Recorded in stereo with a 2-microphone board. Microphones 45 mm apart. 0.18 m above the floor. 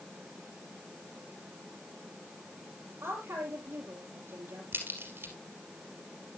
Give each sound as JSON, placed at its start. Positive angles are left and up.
{"t": 3.0, "sound": "a woman speaking", "side_deg": -70, "distance_m": 5.0}
{"t": 4.7, "sound": "a crack", "side_deg": -60, "distance_m": 3.0}